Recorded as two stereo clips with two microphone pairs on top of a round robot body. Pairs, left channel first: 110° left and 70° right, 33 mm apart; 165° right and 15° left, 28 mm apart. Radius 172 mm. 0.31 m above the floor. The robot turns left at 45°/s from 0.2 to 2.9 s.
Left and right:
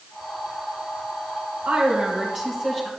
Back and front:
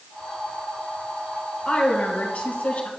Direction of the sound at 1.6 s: 105° right.